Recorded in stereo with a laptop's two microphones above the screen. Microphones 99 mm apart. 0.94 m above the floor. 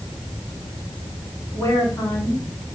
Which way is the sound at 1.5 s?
30° left (ahead or behind).